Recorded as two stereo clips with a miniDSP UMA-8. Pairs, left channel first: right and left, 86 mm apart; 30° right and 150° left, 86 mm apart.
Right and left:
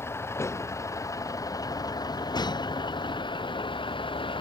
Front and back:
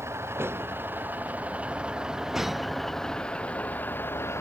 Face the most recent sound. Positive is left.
turn(degrees=-90)